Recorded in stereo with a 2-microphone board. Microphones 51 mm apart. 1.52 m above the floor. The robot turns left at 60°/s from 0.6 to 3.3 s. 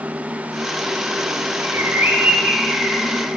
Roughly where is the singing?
I don't hear singing.